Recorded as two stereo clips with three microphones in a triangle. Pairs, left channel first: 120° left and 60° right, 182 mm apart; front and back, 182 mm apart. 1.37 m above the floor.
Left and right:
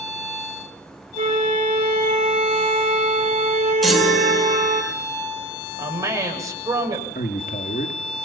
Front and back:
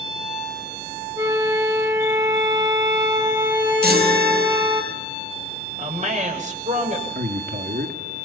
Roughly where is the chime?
Behind right.